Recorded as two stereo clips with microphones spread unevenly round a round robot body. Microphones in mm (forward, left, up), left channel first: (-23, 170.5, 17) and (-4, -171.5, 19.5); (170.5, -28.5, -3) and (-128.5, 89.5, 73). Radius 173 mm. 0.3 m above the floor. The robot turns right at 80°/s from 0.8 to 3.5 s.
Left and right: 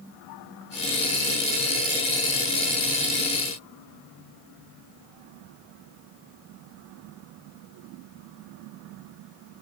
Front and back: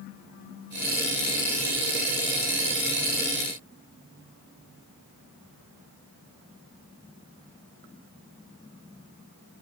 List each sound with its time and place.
Only background noise.